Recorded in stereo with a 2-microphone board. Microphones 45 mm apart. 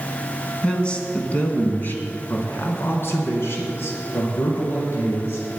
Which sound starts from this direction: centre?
A man speaking, at 0.6 s.